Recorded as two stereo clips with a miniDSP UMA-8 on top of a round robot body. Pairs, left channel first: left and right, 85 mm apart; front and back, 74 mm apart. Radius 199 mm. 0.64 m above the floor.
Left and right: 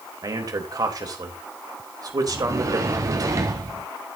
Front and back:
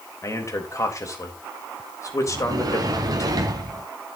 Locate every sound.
0.2 s a man speaking: 45° right, 3.5 m
2.3 s a sliding door: 145° right, 0.9 m